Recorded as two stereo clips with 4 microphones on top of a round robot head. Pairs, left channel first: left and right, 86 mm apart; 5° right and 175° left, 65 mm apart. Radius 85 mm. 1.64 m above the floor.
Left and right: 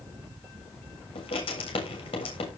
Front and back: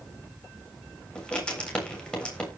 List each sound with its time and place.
1.1 s writing: 70° left, 7.5 m